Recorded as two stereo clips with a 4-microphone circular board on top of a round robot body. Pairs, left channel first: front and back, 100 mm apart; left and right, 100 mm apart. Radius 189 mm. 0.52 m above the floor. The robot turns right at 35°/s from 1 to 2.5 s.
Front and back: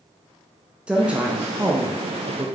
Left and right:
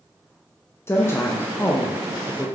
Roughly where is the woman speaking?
Behind left.